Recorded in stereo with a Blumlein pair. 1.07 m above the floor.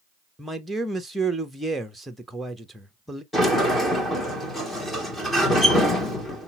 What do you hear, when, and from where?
0.4 s a man speaking: 5° right, 0.9 m
3.3 s a sliding door: 10° left, 1.4 m